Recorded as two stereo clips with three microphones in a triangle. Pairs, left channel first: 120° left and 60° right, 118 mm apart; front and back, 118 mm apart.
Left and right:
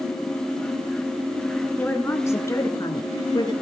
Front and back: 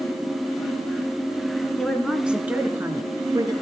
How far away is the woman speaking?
About 1.1 m.